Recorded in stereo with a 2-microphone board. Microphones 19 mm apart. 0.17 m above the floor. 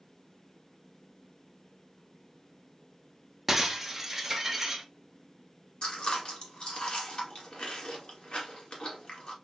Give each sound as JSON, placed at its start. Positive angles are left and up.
{"t": 3.5, "sound": "breaking glass", "side_deg": -10, "distance_m": 0.7}
{"t": 5.8, "sound": "chewing", "side_deg": 55, "distance_m": 1.5}